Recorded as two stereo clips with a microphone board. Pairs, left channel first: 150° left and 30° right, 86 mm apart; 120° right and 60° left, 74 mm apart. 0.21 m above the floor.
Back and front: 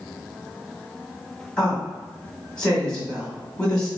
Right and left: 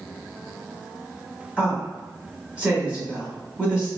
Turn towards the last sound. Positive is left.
turn(degrees=95)